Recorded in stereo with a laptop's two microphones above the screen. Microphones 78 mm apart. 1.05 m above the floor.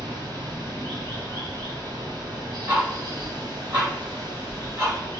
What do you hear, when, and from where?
0.0 s running water: 75° right (ahead or behind), 1.5 m
2.7 s ticking: 35° right (ahead or behind), 1.9 m